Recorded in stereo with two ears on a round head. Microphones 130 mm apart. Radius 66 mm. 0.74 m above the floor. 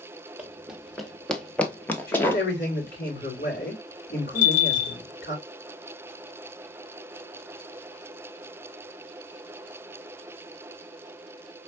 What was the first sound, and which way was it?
Running footsteps, 10° right (ahead or behind).